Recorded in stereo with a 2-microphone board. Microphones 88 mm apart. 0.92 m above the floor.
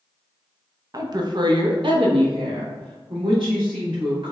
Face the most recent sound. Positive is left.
turn(degrees=-70)  # may be behind; listen again after turning